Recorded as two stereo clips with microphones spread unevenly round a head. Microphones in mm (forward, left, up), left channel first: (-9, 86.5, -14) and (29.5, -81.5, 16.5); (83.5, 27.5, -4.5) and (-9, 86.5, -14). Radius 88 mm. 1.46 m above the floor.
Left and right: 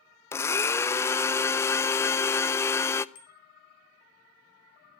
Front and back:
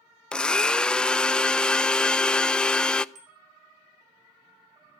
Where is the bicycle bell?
145° left, 5 m.